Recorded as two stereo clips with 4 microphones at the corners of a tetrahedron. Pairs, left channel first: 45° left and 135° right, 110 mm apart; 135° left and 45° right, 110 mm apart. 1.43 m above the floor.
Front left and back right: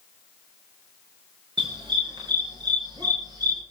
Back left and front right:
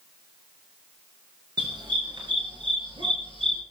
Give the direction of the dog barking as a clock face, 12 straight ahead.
3 o'clock.